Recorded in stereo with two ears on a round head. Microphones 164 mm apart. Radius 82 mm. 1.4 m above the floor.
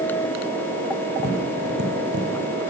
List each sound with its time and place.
1.2 s tapping: 65° right (ahead or behind), 6.5 m